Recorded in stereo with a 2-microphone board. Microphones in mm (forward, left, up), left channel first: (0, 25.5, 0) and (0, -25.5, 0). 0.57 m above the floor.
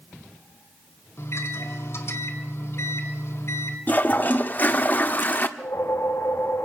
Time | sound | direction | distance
1.2 | a microwave | 60° left (ahead or behind) | 2.5 m
3.9 | a toilet flushing | 35° left (ahead or behind) | 1.2 m
5.6 | a whoosh | 70° left (ahead or behind) | 1.8 m